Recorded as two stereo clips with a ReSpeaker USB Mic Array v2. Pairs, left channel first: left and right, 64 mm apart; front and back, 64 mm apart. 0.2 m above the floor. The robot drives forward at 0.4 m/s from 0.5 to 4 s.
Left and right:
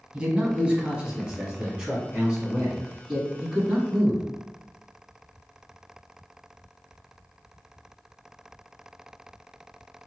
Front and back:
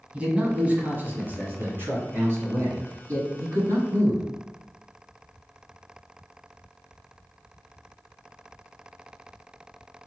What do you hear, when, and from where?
0.1 s a man speaking: 145° right, 1.3 m; by 4.2 s 170° right, 2.5 m